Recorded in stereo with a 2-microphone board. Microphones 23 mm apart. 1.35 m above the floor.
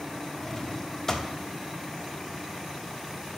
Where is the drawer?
15° left (ahead or behind), 1.0 m.